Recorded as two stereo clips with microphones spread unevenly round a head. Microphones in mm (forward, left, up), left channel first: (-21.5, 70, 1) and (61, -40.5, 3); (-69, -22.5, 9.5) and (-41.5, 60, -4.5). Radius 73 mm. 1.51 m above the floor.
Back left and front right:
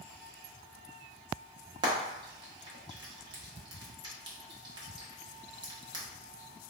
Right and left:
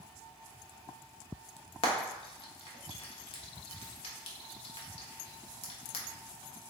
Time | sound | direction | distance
1.8 | frying | 115° right | 0.7 m